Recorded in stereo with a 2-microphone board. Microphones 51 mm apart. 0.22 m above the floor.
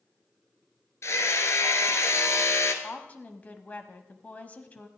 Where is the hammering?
65° left (ahead or behind), 1.3 m.